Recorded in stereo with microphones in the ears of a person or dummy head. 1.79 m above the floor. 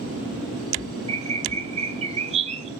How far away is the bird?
About 0.6 m.